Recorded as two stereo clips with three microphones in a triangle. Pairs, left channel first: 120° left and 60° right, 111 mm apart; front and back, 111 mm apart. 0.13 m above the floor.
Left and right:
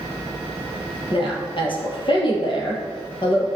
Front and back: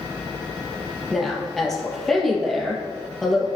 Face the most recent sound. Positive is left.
turn(degrees=85)